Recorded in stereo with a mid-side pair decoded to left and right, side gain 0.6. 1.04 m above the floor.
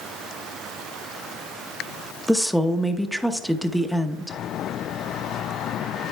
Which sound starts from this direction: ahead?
A woman speaking, at 2.3 s.